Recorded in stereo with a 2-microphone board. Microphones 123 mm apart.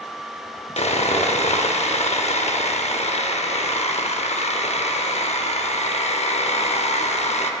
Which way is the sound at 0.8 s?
60° left (ahead or behind).